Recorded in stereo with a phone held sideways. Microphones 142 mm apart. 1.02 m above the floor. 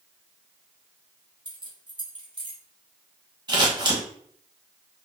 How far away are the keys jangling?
About 1.1 m.